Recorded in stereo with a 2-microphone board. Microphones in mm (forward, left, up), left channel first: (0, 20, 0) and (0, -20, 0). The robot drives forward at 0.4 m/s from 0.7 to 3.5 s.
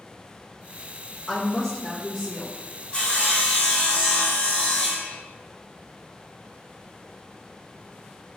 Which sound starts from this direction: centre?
A woman speaking, at 1.3 s.